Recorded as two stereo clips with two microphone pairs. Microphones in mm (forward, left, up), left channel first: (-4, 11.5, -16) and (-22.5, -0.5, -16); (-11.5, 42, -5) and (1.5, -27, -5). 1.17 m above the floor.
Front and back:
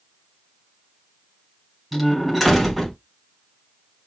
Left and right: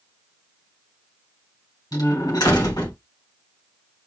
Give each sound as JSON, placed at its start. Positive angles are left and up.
{"t": 1.9, "sound": "a door slam", "azimuth_deg": 125, "distance_m": 3.0}